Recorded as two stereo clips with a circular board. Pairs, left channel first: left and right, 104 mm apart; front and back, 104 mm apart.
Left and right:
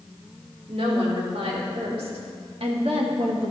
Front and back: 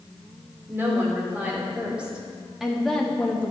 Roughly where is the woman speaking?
Right.